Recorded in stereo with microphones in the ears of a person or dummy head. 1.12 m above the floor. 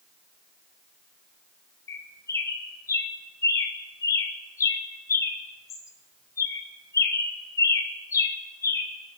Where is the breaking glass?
No breaking glass in this recording.